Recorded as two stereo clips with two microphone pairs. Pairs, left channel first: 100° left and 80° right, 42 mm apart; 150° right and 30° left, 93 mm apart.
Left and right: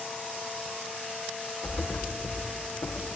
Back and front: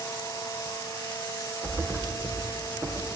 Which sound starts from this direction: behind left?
A thud, at 1.6 s.